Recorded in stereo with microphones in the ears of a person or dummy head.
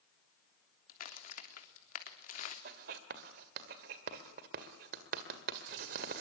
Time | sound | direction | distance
0.9 | a crack | 50° left (ahead or behind) | 3 m
2.6 | writing | 50° right (ahead or behind) | 1.8 m